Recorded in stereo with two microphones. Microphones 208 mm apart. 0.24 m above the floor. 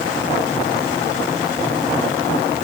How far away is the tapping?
No tapping in this recording.